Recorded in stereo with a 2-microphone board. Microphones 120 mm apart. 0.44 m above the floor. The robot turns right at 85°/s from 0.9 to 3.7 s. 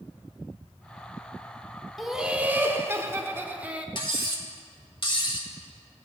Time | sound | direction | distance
2.0 | laughter | centre (ahead or behind) | 0.8 m
4.0 | cutlery clinking | 45° left (ahead or behind) | 1.3 m